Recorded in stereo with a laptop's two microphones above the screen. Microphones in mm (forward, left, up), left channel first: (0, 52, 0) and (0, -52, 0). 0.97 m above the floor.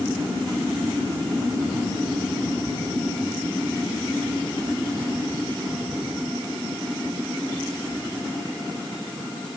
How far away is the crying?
I don't hear crying.